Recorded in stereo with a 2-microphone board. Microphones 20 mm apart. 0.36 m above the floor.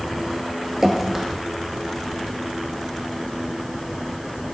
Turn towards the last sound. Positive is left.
turn(degrees=-20)  # may be behind; listen again after turning